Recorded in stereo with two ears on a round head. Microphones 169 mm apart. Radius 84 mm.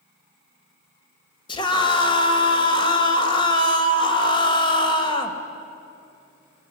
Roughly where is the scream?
Left.